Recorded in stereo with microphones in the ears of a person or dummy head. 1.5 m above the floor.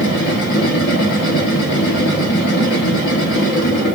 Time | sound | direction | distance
0.0 | a machine running | 60° left (ahead or behind) | 1.6 m